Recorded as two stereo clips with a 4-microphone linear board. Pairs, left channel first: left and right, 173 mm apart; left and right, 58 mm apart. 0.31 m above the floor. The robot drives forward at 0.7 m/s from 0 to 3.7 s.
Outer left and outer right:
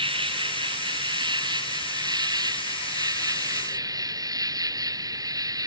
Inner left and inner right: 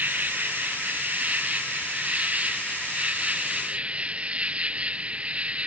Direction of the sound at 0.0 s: 30° right (ahead or behind).